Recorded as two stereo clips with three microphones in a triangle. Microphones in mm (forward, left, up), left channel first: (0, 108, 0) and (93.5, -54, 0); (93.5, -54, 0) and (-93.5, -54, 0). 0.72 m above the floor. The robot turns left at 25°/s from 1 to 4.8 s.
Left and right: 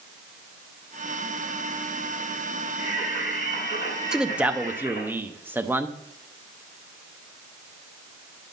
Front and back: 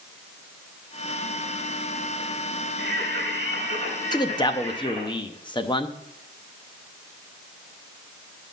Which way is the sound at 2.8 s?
170° left.